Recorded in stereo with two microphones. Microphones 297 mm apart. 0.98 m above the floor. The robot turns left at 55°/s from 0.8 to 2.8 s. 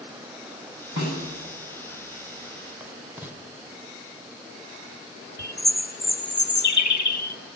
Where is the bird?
85° left, 1.0 m.